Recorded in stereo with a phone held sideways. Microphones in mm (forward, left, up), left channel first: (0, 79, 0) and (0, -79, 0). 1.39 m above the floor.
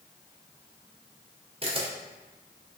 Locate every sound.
1.6 s a camera shutter: 35° right (ahead or behind), 0.6 m